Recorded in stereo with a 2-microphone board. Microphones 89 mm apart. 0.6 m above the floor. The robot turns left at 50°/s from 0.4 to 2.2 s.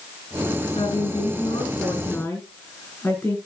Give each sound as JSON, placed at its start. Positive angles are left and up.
{"t": 0.8, "sound": "a woman speaking", "azimuth_deg": 95, "distance_m": 7.0}